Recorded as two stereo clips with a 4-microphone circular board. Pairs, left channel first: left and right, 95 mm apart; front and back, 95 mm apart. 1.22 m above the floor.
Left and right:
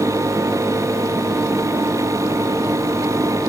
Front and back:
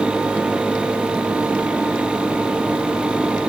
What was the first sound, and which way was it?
Only background noise.